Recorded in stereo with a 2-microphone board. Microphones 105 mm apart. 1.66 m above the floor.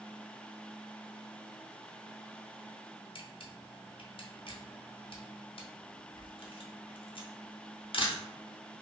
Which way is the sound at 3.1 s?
55° left (ahead or behind).